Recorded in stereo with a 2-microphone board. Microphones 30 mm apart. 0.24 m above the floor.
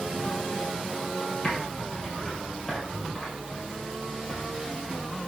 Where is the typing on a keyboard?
20° left (ahead or behind), 3 m.